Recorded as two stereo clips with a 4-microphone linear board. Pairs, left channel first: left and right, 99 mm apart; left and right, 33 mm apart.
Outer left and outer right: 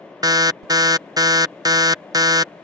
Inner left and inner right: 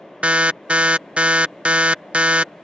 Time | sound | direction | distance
0.2 | an alarm | 40° right (ahead or behind) | ?